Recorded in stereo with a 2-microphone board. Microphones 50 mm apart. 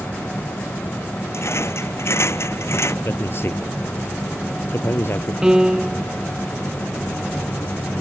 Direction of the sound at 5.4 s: 15° right (ahead or behind).